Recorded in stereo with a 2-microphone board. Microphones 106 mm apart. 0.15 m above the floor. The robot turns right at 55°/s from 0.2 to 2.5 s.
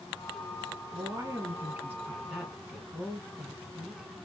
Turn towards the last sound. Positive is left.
turn(degrees=-5)  # may be behind; listen again after turning